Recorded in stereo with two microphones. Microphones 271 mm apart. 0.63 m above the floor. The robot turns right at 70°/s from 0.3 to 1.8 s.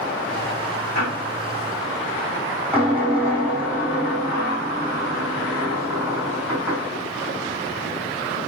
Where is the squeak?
65° right, 6 m; by 6.9 s 5° right, 6 m.